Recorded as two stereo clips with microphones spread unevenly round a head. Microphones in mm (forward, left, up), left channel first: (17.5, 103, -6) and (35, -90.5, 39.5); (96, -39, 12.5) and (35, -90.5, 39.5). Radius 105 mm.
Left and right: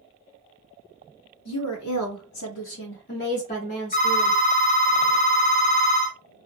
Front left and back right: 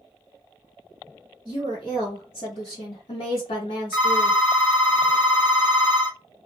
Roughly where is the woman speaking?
Behind left.